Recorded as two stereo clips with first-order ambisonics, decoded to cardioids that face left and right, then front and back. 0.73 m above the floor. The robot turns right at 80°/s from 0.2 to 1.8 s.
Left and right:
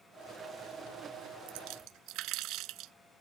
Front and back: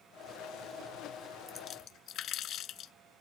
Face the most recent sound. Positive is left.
turn(degrees=-55)